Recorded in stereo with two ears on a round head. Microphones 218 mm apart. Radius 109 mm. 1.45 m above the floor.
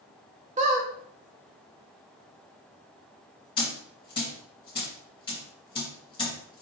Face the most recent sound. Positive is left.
turn(degrees=20)  # may be behind; listen again after turning